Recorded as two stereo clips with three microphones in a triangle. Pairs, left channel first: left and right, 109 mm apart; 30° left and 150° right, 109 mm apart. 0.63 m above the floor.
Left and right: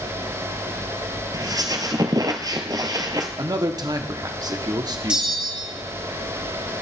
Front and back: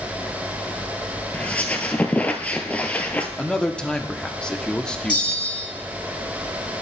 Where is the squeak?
45° right, 1.0 m.